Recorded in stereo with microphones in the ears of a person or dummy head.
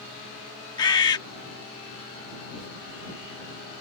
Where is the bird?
20° left (ahead or behind).